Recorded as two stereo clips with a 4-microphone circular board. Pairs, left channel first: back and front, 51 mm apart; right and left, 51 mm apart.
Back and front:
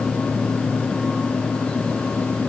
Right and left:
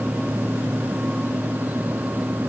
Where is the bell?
No bell in this recording.